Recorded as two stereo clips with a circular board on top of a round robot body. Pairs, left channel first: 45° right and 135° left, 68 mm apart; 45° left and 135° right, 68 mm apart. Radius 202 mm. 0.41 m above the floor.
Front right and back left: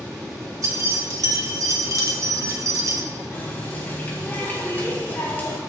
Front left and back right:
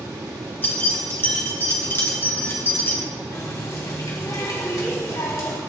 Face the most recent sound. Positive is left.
turn(degrees=15)